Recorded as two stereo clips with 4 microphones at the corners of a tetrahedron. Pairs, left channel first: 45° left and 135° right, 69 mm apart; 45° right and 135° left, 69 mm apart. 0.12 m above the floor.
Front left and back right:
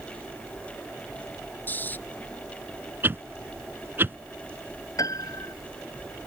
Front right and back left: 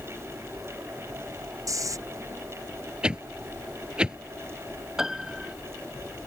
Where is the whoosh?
160° right.